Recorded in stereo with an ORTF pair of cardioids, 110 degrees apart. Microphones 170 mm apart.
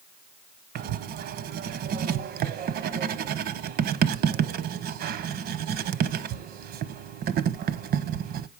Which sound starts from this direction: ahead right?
Writing, at 0.8 s.